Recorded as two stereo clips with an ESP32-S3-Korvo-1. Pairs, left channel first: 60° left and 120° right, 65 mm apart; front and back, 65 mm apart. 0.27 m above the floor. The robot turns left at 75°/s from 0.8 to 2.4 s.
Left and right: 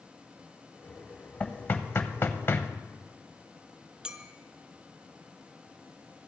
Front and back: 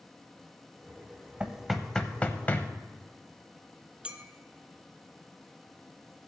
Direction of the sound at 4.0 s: 160° right.